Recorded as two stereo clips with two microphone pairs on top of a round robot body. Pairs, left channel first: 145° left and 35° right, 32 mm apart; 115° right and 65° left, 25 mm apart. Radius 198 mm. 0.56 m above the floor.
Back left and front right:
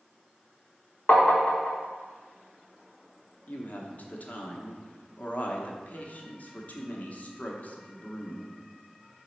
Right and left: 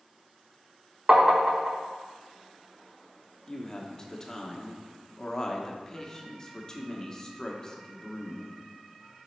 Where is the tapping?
115° left, 0.6 m.